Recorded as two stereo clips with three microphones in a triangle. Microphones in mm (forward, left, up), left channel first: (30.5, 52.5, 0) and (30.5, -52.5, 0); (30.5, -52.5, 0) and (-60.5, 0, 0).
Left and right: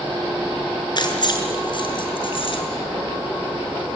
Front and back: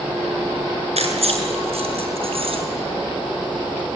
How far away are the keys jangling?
About 6 m.